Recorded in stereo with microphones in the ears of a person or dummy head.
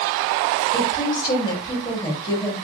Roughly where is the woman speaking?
Left.